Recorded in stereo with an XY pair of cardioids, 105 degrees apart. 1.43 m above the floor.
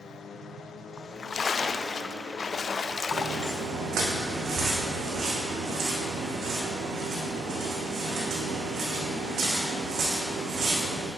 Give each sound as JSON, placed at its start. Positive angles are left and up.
{"t": 1.0, "sound": "a splash", "azimuth_deg": 40, "distance_m": 0.6}
{"t": 3.1, "sound": "footsteps", "azimuth_deg": -65, "distance_m": 4.5}